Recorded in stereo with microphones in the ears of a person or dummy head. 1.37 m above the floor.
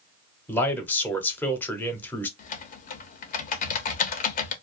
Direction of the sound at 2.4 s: 45° left (ahead or behind).